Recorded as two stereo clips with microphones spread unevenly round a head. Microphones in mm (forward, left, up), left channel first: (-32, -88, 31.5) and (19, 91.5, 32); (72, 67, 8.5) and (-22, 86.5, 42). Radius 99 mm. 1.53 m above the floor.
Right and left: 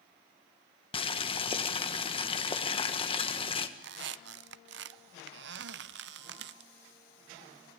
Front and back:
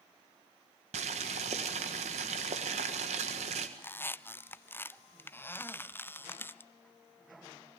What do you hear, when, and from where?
0.9 s boiling: 170° right, 1.6 m
3.8 s a squeak: 65° left, 0.6 m